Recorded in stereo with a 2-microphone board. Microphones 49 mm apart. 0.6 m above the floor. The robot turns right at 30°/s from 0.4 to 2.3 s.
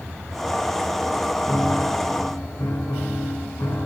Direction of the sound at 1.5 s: 40° left (ahead or behind).